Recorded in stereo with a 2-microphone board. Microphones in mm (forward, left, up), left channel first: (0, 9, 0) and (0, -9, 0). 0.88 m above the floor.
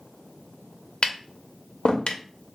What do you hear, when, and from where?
1.0 s tapping: 75° left (ahead or behind), 0.5 m